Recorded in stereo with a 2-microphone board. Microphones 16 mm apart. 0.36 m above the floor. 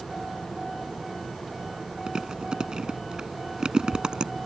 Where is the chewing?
55° right (ahead or behind).